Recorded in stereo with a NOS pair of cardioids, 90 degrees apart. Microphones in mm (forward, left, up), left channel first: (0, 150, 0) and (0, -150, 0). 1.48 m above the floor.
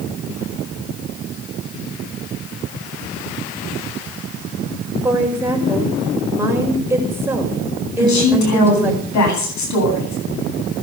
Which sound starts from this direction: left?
A woman speaking, at 8.0 s.